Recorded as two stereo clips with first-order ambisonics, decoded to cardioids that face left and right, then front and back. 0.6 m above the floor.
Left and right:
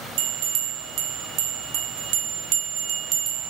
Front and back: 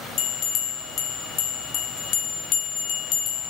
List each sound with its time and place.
0.2 s a bell: 50° right, 0.7 m